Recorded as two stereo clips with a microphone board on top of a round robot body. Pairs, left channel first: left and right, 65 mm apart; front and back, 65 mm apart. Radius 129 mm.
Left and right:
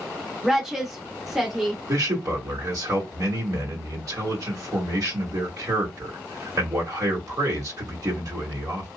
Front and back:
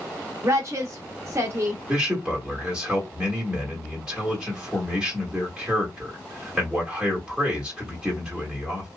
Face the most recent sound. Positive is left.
turn(degrees=-110)